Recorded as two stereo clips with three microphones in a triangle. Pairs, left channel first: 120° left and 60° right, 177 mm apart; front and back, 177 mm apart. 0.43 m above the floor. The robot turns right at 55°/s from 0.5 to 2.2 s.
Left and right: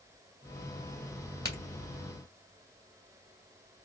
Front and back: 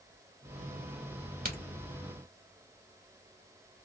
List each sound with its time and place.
1.4 s a crack: 175° right, 2 m; by 1.6 s 170° right, 2 m